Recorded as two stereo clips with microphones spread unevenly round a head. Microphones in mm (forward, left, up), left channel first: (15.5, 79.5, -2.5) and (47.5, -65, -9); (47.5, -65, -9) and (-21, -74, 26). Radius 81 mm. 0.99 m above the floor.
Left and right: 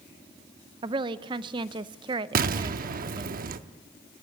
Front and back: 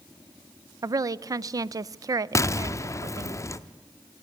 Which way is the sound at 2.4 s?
55° right.